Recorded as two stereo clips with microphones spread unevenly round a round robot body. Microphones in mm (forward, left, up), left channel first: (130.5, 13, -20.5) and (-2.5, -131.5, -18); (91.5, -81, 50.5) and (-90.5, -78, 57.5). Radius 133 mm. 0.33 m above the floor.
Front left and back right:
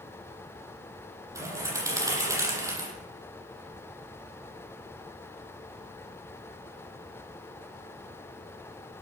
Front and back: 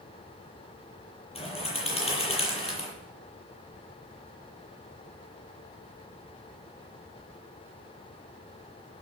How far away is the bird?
About 8 m.